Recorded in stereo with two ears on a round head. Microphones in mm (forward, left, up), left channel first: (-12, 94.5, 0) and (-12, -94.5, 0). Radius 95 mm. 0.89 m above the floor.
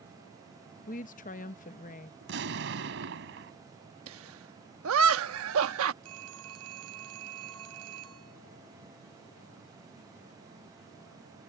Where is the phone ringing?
85° right.